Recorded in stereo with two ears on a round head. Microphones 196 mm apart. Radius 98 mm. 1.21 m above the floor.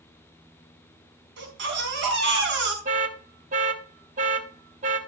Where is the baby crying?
55° right (ahead or behind), 4.5 m.